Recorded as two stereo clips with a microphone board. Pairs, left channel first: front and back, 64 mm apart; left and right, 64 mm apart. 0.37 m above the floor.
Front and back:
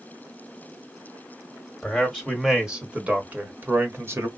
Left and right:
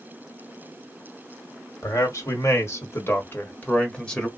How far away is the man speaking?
About 1.5 m.